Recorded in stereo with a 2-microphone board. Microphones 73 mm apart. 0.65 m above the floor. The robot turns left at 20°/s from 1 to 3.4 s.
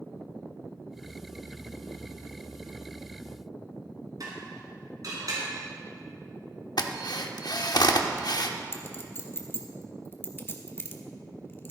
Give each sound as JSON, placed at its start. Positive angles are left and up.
{"t": 4.2, "sound": "dishes clattering", "side_deg": -55, "distance_m": 4.5}
{"t": 6.8, "sound": "a drill", "side_deg": 65, "distance_m": 0.8}
{"t": 8.7, "sound": "a clink", "side_deg": 30, "distance_m": 1.1}